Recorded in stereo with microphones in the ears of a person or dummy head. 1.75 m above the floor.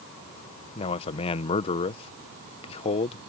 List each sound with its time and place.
0.8 s a man speaking: 30° left (ahead or behind)